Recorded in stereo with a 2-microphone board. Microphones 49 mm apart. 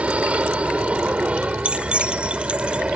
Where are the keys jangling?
20° right (ahead or behind).